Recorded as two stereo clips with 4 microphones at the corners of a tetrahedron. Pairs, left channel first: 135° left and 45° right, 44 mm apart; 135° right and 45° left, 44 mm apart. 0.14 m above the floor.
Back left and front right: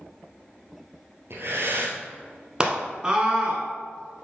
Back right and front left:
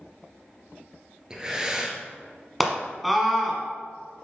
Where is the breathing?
25° right, 1.4 m.